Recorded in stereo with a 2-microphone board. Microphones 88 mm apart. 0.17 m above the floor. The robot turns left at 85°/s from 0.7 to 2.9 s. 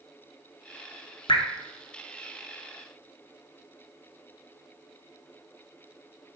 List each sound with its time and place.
1.3 s dripping: 70° left (ahead or behind), 0.8 m; by 1.4 s 65° left (ahead or behind), 0.8 m